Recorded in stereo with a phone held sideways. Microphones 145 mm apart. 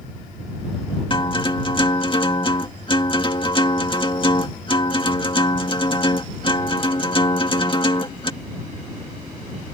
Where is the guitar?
35° left (ahead or behind).